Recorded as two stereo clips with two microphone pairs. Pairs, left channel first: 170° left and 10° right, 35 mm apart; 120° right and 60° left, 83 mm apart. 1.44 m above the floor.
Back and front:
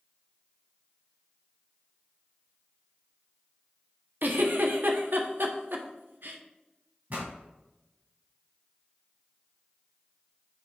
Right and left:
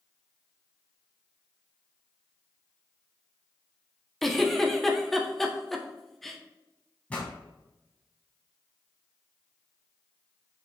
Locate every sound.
4.2 s a giggle: 35° right, 1.0 m
7.1 s a pop: 45° right, 3 m